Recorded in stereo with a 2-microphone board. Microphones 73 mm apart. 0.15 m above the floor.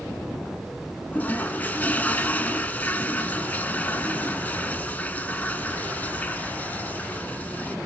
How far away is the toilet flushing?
About 1.0 m.